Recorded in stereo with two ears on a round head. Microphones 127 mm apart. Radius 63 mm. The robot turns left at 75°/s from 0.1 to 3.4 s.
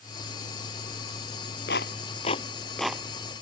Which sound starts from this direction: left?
A clap, at 1.7 s.